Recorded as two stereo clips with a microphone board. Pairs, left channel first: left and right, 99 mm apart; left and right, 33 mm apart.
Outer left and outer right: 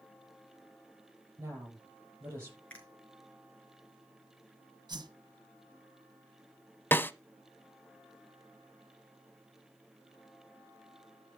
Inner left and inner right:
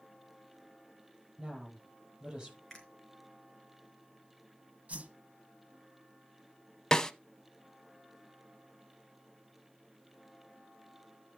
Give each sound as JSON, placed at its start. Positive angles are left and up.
{"t": 1.4, "sound": "a woman speaking", "side_deg": -25, "distance_m": 7.0}
{"t": 2.7, "sound": "a finger snap", "side_deg": 15, "distance_m": 4.5}
{"t": 4.9, "sound": "a whoosh", "side_deg": -45, "distance_m": 1.4}
{"t": 6.9, "sound": "a snare drum", "side_deg": 25, "distance_m": 0.6}